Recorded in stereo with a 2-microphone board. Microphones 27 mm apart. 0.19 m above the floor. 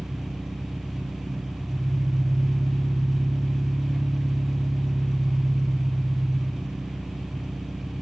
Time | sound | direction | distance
0.0 | an engine running | 15° right (ahead or behind) | 0.8 m